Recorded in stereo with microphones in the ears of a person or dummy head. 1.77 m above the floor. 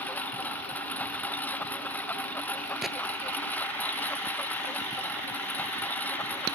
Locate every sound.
0.0 s a lawn mower: 10° left (ahead or behind)
2.8 s a gunshot: centre (ahead or behind)